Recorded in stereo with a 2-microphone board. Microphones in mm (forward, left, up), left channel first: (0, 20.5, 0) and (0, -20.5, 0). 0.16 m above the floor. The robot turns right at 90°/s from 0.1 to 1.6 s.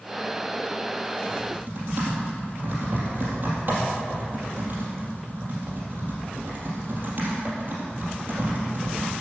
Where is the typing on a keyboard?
20° right (ahead or behind), 4 m; by 9.1 s 45° right (ahead or behind), 4 m.